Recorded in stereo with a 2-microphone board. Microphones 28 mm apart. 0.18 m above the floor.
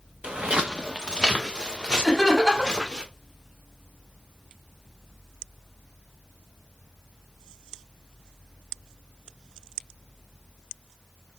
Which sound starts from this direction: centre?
Laughter, at 2.0 s.